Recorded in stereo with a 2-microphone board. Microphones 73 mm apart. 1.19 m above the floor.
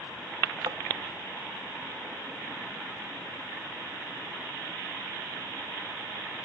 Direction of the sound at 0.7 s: 60° right (ahead or behind).